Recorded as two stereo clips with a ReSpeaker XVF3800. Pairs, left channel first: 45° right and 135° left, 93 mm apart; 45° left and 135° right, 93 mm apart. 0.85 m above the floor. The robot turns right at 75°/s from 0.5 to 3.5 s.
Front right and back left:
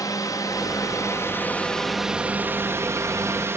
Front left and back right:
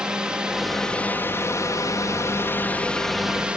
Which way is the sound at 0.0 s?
60° right.